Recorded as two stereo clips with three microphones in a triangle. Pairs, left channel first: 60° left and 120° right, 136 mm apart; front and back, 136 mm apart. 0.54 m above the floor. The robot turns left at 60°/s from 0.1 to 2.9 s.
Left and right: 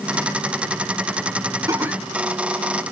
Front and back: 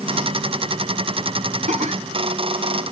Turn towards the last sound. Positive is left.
turn(degrees=105)